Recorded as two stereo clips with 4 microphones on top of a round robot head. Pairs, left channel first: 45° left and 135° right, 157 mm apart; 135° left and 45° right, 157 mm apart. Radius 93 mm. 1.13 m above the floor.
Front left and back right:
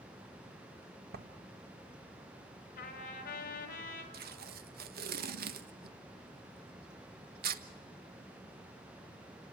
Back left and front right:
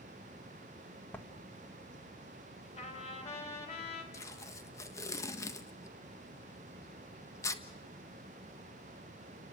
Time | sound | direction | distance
1.1 | writing | 145° right | 1.9 m
2.8 | a trumpet | 85° left | 4 m
4.1 | tape being pulled | 155° right | 1.4 m